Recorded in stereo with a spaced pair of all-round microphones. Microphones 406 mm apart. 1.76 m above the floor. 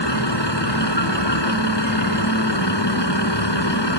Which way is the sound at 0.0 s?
90° left.